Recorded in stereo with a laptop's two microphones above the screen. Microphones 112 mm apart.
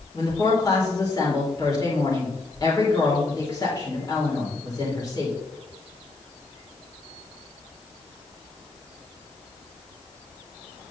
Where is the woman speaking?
35° left (ahead or behind), 3 m.